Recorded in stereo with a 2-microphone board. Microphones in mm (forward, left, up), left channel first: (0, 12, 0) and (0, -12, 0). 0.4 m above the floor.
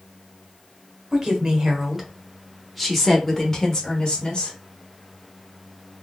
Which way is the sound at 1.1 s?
30° right (ahead or behind).